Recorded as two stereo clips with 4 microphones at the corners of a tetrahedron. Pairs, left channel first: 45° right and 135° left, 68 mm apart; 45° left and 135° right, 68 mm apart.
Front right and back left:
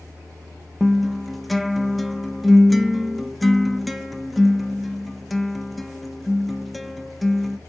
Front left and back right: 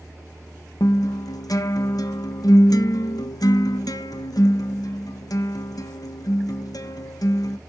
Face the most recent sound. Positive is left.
turn(degrees=45)